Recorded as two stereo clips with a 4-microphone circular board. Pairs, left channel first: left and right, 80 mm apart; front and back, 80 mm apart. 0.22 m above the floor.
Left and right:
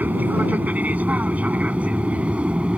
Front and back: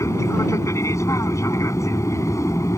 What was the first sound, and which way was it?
An aircraft, 30° right.